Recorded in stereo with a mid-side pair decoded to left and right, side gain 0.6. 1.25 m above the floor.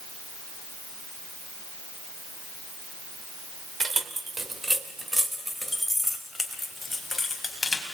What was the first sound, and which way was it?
Keys jangling, 25° right.